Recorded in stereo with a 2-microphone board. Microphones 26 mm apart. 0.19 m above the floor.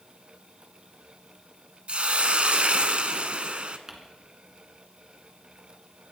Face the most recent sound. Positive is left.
turn(degrees=-20)  # may be behind; listen again after turning